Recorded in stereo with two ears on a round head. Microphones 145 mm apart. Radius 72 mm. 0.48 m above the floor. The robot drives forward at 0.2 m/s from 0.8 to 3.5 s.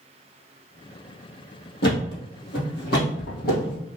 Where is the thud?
75° left (ahead or behind), 2.5 m; by 3.8 s 65° left (ahead or behind), 2.5 m.